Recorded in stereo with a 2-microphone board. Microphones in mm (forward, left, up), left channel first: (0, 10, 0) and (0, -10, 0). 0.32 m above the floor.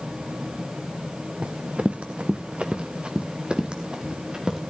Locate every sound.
1.4 s running footsteps: 70° right (ahead or behind), 1.2 m; by 4.6 s 30° right (ahead or behind), 3 m